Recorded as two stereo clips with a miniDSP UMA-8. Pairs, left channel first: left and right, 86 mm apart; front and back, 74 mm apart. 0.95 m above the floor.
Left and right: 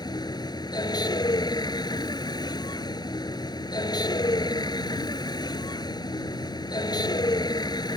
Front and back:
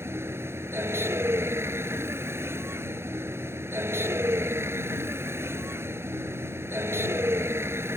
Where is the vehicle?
125° left.